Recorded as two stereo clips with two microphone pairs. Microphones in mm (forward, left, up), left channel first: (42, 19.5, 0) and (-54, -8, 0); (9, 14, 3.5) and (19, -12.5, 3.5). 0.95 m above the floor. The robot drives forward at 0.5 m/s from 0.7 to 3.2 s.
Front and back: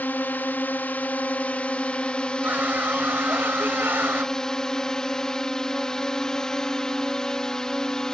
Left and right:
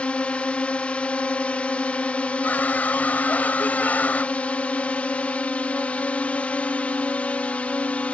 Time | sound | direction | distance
0.0 | a drone | 85° left | ?
2.4 | a scream | 125° left | ?